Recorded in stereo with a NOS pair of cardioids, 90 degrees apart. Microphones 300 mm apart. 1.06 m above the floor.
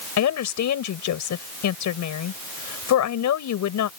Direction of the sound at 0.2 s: 70° left.